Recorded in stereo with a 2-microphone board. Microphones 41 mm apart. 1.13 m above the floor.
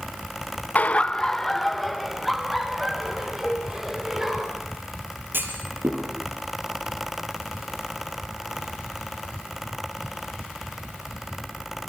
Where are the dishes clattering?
15° left (ahead or behind), 3 m.